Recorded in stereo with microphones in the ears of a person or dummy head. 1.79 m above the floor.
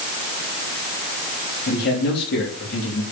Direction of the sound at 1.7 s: 55° left (ahead or behind).